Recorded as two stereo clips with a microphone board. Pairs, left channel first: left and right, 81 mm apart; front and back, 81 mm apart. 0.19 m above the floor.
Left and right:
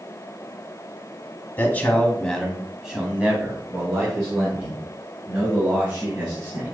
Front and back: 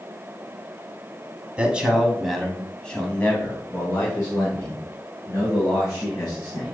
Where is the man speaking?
125° left, 1.1 m; by 6.7 s 45° right, 3 m.